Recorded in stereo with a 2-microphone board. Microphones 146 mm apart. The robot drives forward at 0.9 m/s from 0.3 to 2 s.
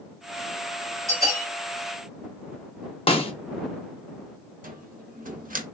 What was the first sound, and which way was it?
A bell, 25° right (ahead or behind).